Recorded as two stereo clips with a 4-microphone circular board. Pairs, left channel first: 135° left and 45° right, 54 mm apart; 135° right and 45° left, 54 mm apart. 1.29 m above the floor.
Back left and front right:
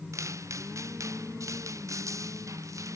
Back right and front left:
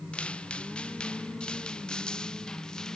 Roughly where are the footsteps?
Ahead right.